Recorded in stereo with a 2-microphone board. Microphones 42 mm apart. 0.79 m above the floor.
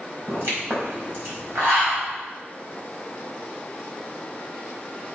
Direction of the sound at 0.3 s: 60° right (ahead or behind).